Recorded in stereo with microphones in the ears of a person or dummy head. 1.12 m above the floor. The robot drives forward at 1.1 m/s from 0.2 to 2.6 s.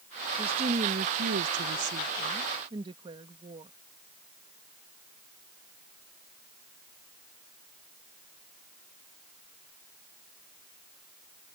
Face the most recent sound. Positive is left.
turn(degrees=-30)  # may be behind; listen again after turning